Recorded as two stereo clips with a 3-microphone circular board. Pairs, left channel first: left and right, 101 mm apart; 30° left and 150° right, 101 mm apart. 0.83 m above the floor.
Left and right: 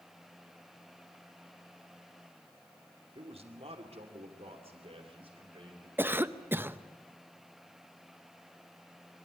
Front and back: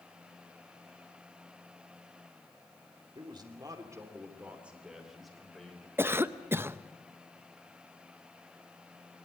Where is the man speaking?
110° right, 2.5 m; by 5.9 s 50° right, 4 m.